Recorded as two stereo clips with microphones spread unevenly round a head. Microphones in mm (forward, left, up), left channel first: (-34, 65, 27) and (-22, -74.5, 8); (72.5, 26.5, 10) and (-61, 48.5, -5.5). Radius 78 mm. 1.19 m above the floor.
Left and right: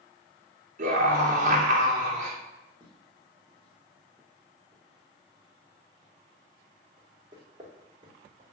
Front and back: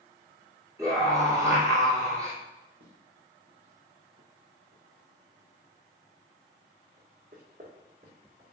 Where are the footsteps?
170° left, 3.5 m; by 8.5 s 135° right, 3 m.